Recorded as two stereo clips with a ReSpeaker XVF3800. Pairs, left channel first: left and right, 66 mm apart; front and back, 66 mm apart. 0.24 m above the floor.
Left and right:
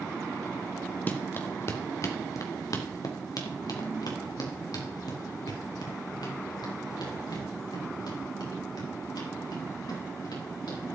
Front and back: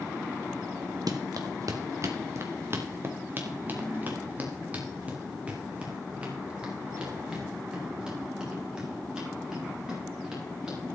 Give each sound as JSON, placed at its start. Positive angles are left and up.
{"t": 1.1, "sound": "running footsteps", "azimuth_deg": 155, "distance_m": 1.8}